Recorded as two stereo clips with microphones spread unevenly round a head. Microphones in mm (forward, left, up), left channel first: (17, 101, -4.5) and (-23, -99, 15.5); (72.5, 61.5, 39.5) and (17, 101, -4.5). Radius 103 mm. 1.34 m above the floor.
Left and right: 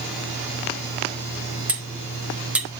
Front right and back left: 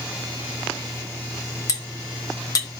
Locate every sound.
1.7 s cutlery clinking: 20° right, 2.0 m